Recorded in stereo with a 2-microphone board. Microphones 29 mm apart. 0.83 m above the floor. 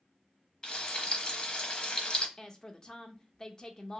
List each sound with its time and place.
0.6 s frying: 30° left (ahead or behind), 0.8 m
2.4 s a woman speaking: 25° left (ahead or behind), 0.7 m